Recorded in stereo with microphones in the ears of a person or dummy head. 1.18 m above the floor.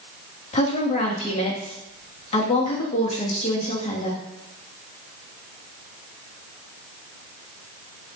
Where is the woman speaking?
40° left (ahead or behind), 2 m.